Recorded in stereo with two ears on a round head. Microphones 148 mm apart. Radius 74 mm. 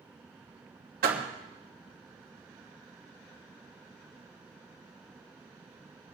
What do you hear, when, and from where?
1.0 s a door slam: 60° right (ahead or behind), 2.5 m